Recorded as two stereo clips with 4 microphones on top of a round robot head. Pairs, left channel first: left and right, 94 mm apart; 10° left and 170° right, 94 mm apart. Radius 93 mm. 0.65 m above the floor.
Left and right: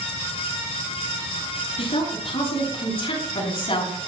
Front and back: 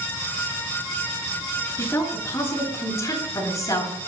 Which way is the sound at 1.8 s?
70° left.